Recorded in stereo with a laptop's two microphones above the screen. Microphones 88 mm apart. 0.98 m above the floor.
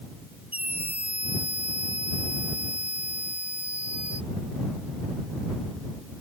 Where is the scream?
15° right (ahead or behind).